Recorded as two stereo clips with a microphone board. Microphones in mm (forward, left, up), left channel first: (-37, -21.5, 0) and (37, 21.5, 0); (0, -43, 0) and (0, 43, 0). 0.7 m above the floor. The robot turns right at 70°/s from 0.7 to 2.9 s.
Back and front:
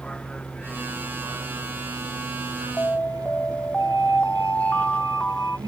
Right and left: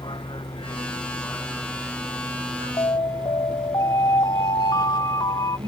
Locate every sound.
0.0 s a vehicle: 70° right; by 5.7 s 75° left
2.8 s an alarm: 90° right; by 5.6 s 80° right